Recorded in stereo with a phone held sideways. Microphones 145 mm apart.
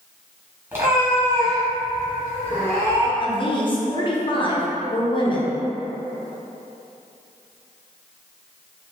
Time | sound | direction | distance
0.7 | a cat meowing | 15° right (ahead or behind) | 1.1 m
3.2 | a woman speaking | 35° left (ahead or behind) | 0.6 m